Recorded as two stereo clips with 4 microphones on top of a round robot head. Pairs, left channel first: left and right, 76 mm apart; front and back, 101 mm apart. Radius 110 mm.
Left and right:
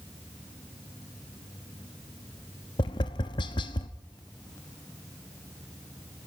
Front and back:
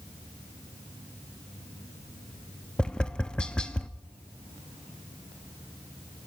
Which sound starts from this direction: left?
Tapping, at 2.8 s.